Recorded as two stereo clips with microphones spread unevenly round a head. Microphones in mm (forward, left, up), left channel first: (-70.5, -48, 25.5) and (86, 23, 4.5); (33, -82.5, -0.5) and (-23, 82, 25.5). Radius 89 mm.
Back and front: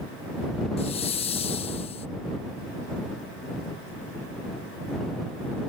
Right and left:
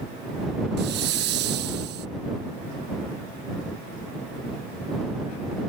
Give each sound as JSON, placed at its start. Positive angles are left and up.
{"t": 0.8, "sound": "a hiss", "azimuth_deg": 145}